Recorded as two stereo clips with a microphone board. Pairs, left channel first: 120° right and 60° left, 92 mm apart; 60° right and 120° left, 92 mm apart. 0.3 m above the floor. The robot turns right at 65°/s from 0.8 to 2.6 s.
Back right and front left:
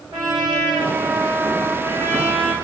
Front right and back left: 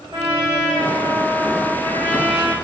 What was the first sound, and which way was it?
A trumpet, 105° left.